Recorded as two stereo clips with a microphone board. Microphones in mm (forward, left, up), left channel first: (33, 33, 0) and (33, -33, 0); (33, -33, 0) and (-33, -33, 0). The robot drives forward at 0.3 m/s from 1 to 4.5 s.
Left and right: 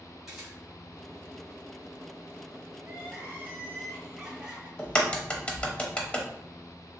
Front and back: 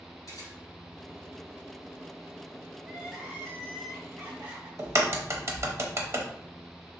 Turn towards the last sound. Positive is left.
turn(degrees=155)